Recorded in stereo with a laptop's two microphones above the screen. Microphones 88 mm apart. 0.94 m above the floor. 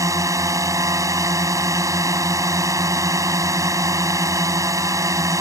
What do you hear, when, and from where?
0.0 s a drone: 40° right (ahead or behind)